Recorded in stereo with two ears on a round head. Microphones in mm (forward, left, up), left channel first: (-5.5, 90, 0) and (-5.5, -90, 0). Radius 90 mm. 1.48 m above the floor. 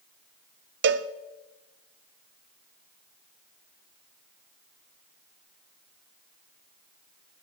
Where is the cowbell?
55° right (ahead or behind), 0.6 m.